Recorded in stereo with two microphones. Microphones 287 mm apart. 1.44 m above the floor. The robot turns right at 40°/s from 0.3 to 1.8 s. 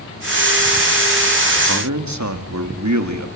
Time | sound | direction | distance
1.7 | a man speaking | 80° right | 2 m